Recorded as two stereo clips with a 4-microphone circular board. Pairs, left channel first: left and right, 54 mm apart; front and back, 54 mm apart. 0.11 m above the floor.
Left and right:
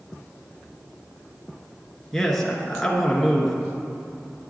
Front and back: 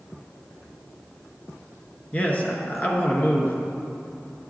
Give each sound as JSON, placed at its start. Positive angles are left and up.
{"t": 2.1, "sound": "a man speaking", "azimuth_deg": 10, "distance_m": 1.2}